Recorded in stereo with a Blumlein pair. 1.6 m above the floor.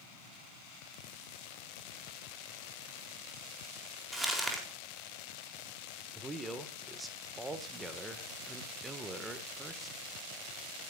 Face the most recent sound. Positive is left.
turn(degrees=-10)